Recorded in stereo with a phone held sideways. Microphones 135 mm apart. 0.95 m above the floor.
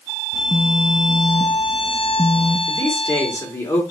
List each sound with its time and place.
0.3 s a phone buzzing: 35° left (ahead or behind), 1.3 m
2.7 s a man speaking: 20° left (ahead or behind), 2.5 m